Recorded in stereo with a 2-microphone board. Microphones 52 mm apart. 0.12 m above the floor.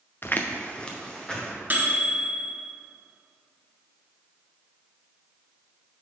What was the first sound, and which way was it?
Footsteps, 45° left (ahead or behind).